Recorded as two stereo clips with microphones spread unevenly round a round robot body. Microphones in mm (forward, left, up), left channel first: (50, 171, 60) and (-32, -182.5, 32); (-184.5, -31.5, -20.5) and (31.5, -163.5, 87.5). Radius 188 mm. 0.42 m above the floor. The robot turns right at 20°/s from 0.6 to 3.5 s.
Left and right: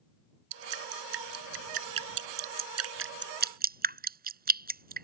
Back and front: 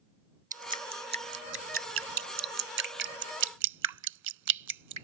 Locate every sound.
0.5 s dripping: 95° right; by 5.0 s 35° right